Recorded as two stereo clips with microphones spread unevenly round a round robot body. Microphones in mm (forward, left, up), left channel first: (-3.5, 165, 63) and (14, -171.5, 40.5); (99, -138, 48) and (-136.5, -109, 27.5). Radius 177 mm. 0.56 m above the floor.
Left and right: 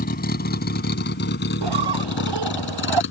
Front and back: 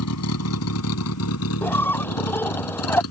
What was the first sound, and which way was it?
A vehicle, 30° left.